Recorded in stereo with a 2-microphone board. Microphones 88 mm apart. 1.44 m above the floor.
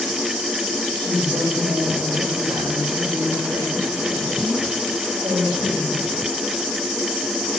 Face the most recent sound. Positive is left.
turn(degrees=-70)  # may be behind; listen again after turning